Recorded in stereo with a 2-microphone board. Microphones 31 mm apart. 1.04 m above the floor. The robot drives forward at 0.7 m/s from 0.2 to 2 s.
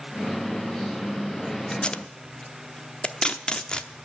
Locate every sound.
1.7 s tape being pulled: 35° left (ahead or behind), 0.6 m; by 3.9 s 30° left (ahead or behind), 0.7 m